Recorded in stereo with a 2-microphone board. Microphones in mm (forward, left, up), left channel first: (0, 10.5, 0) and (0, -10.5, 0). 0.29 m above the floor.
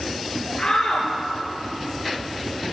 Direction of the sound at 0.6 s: 30° left (ahead or behind).